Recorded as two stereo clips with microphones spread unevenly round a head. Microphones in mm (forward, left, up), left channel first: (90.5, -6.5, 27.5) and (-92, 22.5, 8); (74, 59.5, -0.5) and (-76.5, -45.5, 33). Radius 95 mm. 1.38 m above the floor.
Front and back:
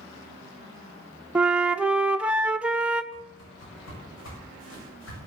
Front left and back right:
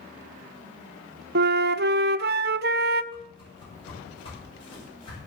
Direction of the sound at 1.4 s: 105° right.